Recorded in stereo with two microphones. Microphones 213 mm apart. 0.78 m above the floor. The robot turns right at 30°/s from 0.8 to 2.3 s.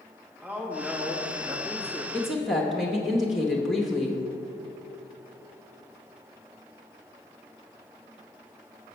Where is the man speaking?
170° right, 1.3 m; by 2.0 s 135° right, 1.3 m.